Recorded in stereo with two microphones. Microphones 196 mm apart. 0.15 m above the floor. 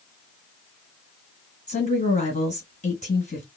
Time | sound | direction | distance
1.7 | a woman speaking | 35° left (ahead or behind) | 1.9 m